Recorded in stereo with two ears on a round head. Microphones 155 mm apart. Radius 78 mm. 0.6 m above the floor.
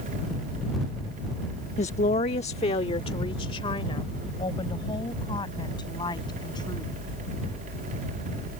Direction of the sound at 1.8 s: 40° left (ahead or behind).